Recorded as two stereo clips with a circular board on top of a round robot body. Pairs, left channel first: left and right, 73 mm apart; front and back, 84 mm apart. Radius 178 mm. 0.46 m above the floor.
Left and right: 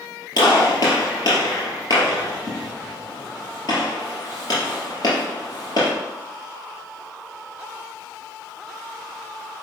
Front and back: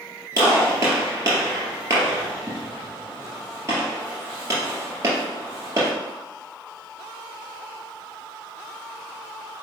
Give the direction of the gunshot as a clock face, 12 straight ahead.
8 o'clock.